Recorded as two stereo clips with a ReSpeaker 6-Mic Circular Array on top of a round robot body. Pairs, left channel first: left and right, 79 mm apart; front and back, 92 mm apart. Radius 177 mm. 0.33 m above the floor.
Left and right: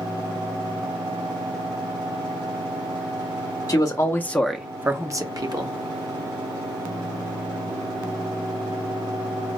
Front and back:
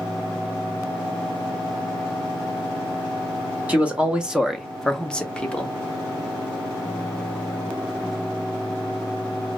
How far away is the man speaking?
About 1.1 m.